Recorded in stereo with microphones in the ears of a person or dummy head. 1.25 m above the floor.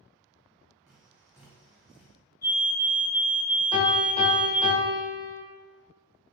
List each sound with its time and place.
0.9 s tapping: 5° right (ahead or behind), 2.5 m
2.4 s a fire alarm: 20° left (ahead or behind), 3 m
3.7 s a piano: 30° left (ahead or behind), 2 m